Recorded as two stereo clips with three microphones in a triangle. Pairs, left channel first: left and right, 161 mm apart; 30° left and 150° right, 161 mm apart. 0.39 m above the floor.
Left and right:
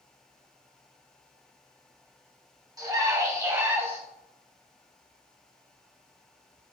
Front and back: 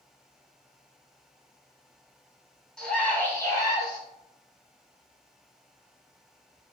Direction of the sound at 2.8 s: 50° right.